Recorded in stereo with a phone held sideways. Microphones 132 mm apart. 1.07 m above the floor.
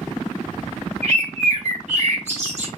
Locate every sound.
1.0 s a bird: 55° right (ahead or behind), 1.7 m